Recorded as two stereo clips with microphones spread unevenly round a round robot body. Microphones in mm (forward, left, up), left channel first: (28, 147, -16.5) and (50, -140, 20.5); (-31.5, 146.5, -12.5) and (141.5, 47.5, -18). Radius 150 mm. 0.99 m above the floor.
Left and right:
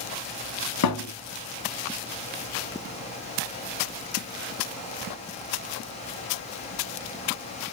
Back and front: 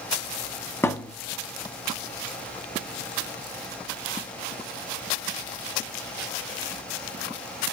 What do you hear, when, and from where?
0.8 s a thud: 75° left, 1.3 m